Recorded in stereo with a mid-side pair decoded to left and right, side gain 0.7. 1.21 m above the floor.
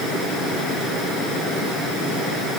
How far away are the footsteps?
I don't hear footsteps.